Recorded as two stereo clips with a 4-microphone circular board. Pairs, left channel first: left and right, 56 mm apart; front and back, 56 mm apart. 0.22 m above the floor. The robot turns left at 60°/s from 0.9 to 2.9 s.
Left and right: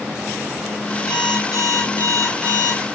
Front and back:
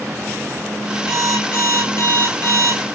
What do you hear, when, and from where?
1.1 s an alarm clock: 90° left, 9 m; by 2.8 s 10° right, 9 m